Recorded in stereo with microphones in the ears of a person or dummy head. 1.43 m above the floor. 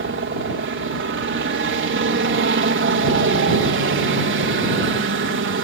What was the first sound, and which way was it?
A helicopter, 55° right (ahead or behind).